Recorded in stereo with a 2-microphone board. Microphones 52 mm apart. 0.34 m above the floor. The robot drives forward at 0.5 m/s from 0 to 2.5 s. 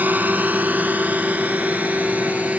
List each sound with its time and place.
0.0 s a drone: 35° right (ahead or behind); by 2.6 s 25° right (ahead or behind)